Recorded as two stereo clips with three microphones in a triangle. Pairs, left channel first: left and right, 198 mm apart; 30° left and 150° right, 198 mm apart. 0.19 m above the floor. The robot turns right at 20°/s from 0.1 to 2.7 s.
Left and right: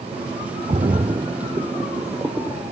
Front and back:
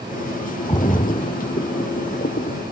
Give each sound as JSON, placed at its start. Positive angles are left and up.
{"t": 0.7, "sound": "a splash", "azimuth_deg": -35}